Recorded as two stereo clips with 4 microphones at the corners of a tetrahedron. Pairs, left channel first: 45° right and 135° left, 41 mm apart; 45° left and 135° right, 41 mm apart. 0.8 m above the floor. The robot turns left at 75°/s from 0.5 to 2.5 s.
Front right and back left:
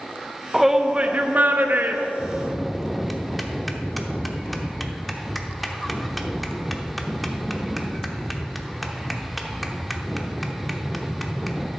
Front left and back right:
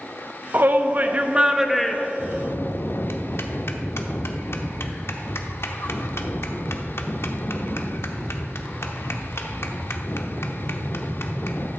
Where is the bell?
65° left, 0.8 m; by 11.7 s 45° left, 0.8 m.